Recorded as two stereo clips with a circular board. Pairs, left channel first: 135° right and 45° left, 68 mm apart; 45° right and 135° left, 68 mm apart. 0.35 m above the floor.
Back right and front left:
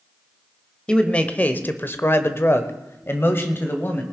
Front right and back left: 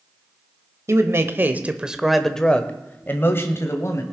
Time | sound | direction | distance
0.9 | a man speaking | 155° left | 1.2 m